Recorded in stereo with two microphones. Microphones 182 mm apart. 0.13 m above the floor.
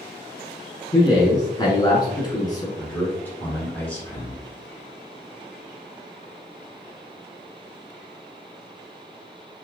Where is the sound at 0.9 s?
20° left (ahead or behind), 1.1 m.